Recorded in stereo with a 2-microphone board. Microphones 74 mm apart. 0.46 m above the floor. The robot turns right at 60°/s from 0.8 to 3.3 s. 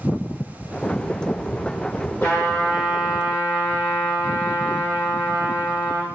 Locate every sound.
2.2 s a trumpet: 145° left, 0.9 m; by 6.1 s 150° right, 0.9 m